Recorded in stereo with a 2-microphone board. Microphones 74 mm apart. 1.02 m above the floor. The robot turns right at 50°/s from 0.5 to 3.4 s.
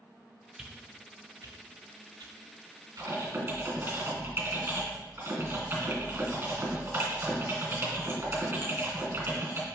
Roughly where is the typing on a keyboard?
Right.